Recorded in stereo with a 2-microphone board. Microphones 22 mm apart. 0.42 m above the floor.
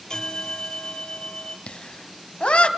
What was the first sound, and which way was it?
A bell, 35° left (ahead or behind).